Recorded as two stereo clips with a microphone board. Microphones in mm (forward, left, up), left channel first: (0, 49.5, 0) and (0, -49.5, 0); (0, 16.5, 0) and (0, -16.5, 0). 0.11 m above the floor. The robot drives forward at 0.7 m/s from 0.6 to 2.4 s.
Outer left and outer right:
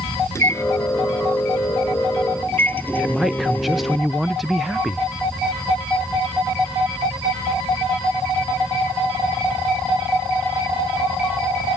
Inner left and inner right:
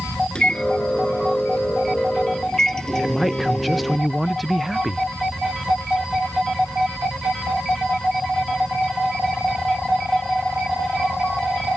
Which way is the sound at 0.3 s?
30° left (ahead or behind).